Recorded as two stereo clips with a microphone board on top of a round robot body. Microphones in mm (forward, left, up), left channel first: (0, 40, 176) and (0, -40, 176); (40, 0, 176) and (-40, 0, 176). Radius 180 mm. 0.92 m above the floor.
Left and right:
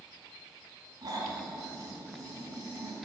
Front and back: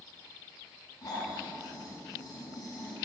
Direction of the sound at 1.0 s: 50° right.